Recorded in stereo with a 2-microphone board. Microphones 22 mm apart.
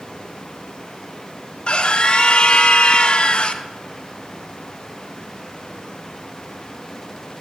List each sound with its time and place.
0.0 s running water: 60° left (ahead or behind), 1.4 m
1.7 s a scream: 50° left (ahead or behind), 0.6 m